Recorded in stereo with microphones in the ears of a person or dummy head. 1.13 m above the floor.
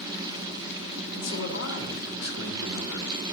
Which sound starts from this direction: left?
A man speaking, at 1.1 s.